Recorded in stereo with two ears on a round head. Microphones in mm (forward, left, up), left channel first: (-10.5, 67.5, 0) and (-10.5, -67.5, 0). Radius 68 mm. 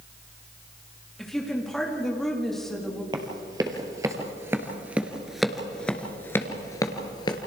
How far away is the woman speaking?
About 3 m.